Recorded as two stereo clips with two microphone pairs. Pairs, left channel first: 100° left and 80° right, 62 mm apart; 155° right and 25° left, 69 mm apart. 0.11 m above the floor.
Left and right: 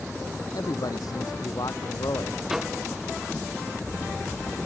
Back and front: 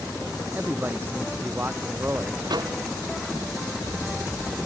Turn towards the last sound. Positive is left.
turn(degrees=5)